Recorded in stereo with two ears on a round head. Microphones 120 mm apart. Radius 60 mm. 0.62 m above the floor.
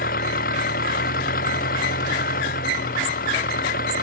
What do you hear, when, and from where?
0.0 s an engine running: 70° left (ahead or behind)